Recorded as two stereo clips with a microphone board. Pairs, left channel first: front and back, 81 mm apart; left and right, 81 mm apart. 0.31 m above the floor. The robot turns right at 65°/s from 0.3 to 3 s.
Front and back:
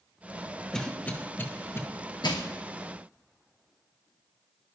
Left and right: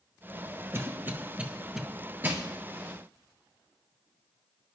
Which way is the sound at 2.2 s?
25° right.